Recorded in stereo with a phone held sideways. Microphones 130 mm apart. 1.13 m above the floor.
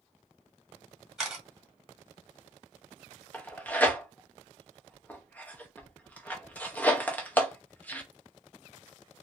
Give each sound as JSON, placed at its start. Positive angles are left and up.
{"t": 1.2, "sound": "a camera shutter", "side_deg": -5, "distance_m": 1.5}
{"t": 3.3, "sound": "tearing paper", "side_deg": 10, "distance_m": 0.7}